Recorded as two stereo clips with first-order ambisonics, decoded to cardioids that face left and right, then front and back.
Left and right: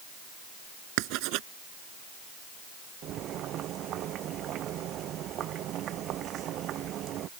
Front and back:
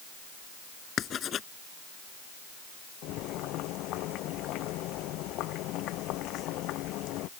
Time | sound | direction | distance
1.0 | writing | 60° right | ?
3.0 | boiling | 40° right | ?